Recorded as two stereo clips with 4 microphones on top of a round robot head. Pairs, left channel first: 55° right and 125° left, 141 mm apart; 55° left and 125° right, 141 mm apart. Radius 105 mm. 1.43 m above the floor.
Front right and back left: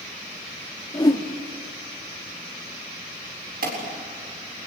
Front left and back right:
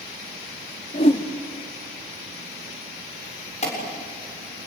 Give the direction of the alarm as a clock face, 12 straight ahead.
9 o'clock.